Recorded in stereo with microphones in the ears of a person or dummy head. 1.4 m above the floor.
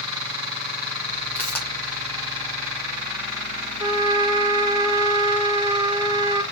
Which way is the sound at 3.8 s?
20° right (ahead or behind).